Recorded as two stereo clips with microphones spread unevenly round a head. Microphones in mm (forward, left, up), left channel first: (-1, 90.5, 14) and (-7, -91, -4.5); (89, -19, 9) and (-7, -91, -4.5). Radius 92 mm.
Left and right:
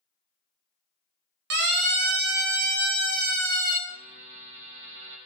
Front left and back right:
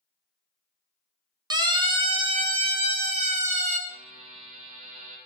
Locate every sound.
1.5 s a siren: 95° right, 2.5 m; by 3.8 s 130° right, 4 m
3.9 s a buzzer: 115° right, 7.5 m